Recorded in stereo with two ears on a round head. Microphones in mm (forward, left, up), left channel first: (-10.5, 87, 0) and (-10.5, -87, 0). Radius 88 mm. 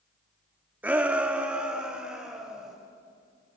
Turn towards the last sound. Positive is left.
turn(degrees=-5)  # may be behind; listen again after turning